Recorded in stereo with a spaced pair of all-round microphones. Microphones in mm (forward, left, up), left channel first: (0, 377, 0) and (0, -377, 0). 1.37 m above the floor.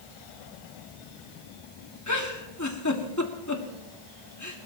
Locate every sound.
2.1 s a giggle: 20° left (ahead or behind), 1.9 m